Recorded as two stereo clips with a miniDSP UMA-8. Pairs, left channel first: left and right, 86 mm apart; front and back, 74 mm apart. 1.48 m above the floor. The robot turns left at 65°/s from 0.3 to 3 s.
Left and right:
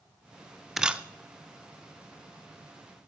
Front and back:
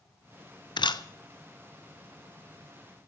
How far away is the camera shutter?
About 0.7 m.